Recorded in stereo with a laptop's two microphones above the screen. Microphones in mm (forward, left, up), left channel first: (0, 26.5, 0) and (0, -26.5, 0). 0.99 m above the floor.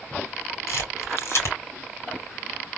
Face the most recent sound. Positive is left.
turn(degrees=60)  # may be behind; listen again after turning